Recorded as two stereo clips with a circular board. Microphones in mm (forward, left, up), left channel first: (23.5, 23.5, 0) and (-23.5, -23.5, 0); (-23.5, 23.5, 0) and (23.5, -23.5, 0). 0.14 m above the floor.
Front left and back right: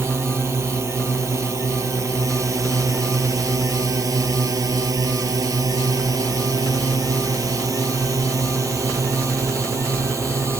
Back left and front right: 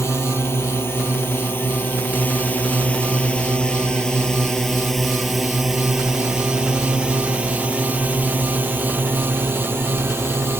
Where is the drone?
Straight behind; by 10.6 s 95° right.